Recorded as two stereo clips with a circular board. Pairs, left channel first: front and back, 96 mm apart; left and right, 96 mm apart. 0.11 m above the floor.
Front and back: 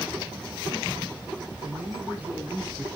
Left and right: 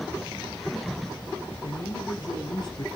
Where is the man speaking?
115° left, 2.5 m; by 2.9 s 105° left, 2 m.